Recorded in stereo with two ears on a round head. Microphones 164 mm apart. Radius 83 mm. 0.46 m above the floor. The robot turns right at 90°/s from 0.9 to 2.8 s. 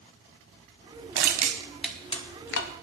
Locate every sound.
1.1 s crushing: 60° right (ahead or behind), 1.3 m; by 2.7 s 75° left (ahead or behind), 1.3 m